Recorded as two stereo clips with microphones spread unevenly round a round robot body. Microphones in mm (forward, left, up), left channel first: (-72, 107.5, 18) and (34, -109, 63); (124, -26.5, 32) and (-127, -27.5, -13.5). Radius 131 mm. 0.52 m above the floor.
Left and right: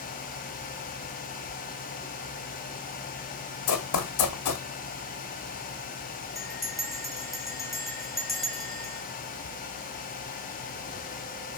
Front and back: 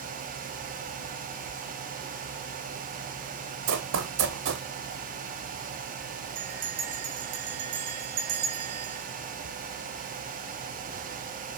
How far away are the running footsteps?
About 1.5 m.